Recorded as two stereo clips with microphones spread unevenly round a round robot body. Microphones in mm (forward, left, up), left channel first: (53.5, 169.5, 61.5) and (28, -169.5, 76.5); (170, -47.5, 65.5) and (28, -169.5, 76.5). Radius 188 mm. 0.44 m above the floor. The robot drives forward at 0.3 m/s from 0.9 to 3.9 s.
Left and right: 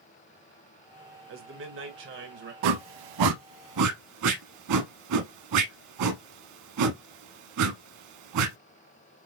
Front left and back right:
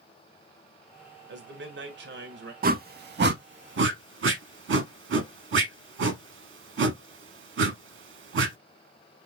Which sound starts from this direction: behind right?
A man speaking, at 1.3 s.